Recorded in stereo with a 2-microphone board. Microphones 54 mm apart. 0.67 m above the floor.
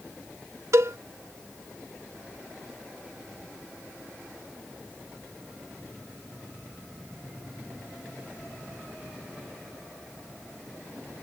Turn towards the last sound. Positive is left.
turn(degrees=-70)  # may be behind; listen again after turning